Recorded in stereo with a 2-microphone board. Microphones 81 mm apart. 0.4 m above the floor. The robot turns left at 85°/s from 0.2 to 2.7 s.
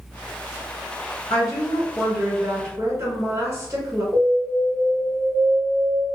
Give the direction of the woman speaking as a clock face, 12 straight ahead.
10 o'clock.